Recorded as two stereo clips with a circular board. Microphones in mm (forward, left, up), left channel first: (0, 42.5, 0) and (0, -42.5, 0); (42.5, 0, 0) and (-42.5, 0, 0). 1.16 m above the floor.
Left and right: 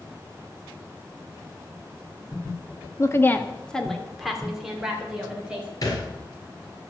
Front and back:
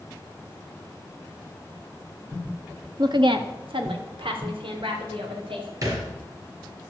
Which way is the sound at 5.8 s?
135° left.